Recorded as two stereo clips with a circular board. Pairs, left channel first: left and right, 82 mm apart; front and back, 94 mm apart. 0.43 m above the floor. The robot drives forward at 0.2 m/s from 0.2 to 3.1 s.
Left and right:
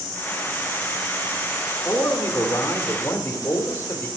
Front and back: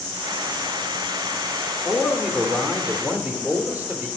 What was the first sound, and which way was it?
A man speaking, 90° left.